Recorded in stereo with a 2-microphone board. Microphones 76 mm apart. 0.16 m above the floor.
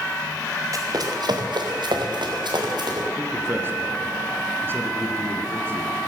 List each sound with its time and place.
0.7 s running footsteps: 50° right (ahead or behind), 2.5 m; by 3.1 s 70° right (ahead or behind), 4 m
3.2 s a man speaking: 30° right (ahead or behind), 2.0 m